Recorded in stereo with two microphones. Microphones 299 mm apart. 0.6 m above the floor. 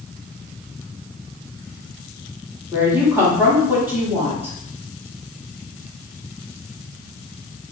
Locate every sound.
2.7 s a woman speaking: 10° right (ahead or behind), 1.1 m